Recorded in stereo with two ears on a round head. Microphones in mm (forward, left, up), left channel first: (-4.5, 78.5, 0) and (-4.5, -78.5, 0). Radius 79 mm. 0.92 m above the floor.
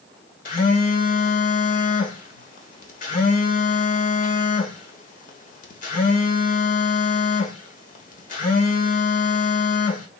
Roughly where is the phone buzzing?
Left.